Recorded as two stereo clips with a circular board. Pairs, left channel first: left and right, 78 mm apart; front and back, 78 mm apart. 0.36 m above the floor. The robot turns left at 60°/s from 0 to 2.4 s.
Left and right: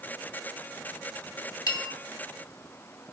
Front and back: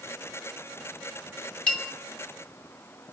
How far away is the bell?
About 1.7 m.